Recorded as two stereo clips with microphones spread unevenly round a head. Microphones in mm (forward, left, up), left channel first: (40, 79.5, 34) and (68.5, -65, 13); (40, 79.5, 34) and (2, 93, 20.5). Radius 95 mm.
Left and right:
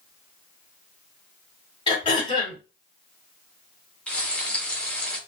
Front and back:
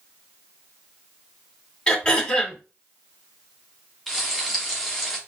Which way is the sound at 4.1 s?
35° left.